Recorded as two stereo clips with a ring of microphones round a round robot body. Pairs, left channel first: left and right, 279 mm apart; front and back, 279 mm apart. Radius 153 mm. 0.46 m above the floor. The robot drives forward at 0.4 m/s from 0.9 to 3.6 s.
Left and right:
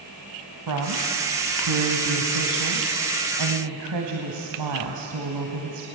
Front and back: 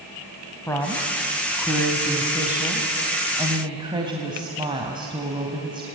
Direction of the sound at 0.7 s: 80° right.